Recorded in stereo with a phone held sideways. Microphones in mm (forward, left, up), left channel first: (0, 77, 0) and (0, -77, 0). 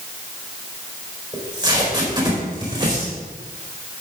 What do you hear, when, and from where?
1.3 s tape being pulled: 25° right (ahead or behind), 4.5 m